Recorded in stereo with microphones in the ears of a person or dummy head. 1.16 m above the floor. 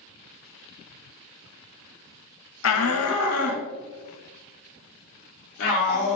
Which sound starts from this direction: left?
A shout, at 2.6 s.